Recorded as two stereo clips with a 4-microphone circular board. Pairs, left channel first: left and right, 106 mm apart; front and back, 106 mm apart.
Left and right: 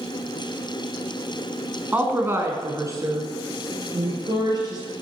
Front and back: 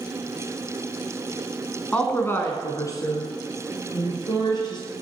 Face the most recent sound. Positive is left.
turn(degrees=-40)